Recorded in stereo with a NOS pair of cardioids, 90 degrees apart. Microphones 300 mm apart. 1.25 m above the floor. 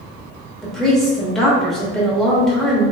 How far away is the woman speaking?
About 1.2 m.